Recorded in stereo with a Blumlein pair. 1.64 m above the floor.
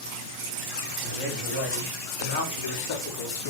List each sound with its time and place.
1.0 s a man speaking: 45° left, 5.5 m; by 3.5 s 60° left, 4 m